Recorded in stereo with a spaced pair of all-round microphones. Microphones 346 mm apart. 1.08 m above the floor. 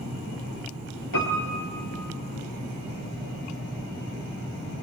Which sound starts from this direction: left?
A piano, at 1.1 s.